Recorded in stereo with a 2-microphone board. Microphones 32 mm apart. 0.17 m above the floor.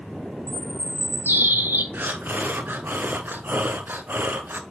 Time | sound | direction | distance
0.5 | a bird | 85° right | 0.6 m
1.9 | breathing | 75° right (ahead or behind) | 0.7 m